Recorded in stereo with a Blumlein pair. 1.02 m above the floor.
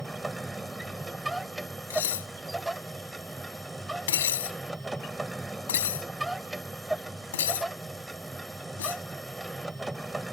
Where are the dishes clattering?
60° left.